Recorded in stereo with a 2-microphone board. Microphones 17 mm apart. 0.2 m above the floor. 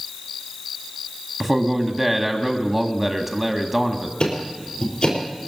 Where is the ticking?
60° left (ahead or behind), 5 m.